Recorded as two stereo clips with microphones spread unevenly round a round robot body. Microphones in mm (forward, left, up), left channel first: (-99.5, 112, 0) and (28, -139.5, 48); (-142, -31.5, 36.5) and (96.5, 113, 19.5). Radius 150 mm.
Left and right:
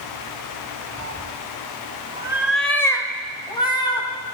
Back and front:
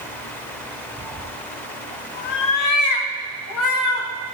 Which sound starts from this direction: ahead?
A cat meowing, at 1.0 s.